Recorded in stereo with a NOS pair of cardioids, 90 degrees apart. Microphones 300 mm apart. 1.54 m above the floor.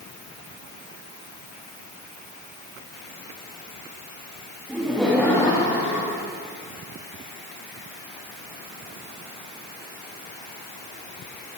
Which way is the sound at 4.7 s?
5° right.